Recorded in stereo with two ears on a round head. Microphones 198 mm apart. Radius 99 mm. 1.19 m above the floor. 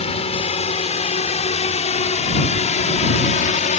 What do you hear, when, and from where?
0.0 s a drone: 30° left (ahead or behind); by 3.8 s 35° left (ahead or behind)